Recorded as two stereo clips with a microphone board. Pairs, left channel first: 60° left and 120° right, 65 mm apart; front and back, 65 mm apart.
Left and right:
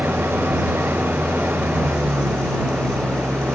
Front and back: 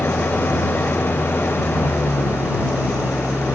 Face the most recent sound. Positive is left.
turn(degrees=-60)